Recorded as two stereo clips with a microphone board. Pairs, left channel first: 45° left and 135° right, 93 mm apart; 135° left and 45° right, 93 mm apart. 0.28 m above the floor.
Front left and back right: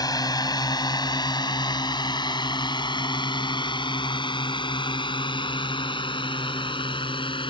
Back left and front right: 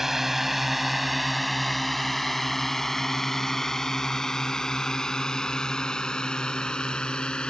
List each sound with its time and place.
0.0 s a drone: 40° left; by 7.5 s 55° left